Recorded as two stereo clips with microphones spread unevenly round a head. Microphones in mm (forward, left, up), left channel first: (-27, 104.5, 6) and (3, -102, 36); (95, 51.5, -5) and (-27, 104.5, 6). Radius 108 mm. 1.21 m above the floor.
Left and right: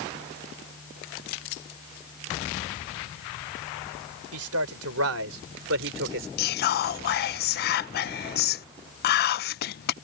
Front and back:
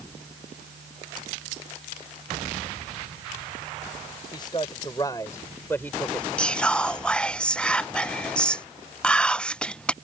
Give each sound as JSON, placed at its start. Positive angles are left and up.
{"t": 4.3, "sound": "a man speaking", "azimuth_deg": -95}
{"t": 6.4, "sound": "whispering", "azimuth_deg": 60}